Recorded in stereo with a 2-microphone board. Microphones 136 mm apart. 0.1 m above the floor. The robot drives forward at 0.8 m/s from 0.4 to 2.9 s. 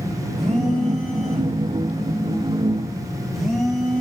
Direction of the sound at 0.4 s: Centre (ahead or behind).